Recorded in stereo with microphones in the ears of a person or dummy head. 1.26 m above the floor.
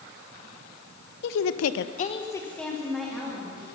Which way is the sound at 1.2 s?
60° left (ahead or behind).